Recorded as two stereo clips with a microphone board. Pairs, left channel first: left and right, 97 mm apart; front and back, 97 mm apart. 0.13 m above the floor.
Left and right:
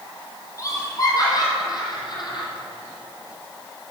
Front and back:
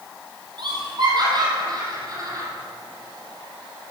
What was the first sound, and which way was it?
Laughter, 145° left.